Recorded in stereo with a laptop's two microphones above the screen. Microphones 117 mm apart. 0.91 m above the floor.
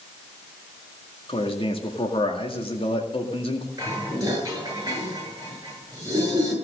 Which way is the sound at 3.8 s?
30° right (ahead or behind).